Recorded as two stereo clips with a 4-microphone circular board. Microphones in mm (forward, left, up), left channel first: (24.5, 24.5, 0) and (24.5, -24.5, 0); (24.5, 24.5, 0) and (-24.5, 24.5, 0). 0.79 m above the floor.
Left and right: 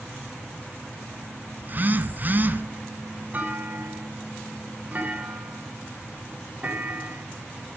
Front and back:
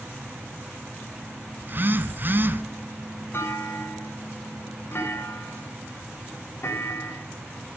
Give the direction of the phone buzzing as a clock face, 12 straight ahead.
5 o'clock.